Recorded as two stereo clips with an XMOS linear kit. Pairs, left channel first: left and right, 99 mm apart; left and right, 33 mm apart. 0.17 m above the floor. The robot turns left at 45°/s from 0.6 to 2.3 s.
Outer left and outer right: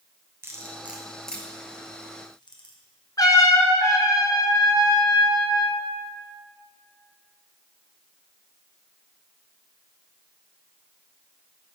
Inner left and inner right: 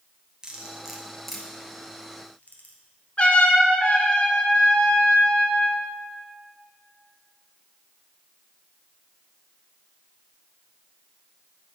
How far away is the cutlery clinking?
About 1.7 m.